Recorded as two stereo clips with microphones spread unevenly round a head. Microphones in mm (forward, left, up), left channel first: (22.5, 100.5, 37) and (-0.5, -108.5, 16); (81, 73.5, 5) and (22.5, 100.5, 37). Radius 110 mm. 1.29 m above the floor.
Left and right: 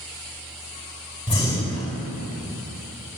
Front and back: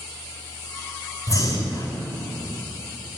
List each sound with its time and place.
1.3 s breathing: 10° left, 4 m